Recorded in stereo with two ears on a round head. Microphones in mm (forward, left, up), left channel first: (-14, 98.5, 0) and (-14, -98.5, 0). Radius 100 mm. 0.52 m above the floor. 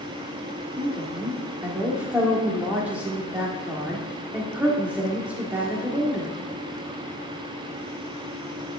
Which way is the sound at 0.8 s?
5° right (ahead or behind).